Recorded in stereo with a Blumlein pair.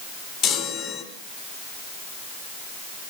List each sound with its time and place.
0.4 s a chime: 30° left, 3.5 m